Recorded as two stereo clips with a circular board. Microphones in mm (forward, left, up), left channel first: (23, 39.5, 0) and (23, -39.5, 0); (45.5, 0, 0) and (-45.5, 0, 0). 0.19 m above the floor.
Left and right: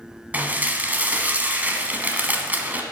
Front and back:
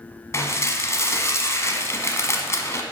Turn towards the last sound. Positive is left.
turn(degrees=-35)